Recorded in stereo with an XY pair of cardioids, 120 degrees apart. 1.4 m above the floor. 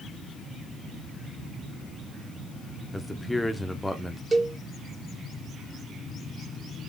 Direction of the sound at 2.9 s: 10° left.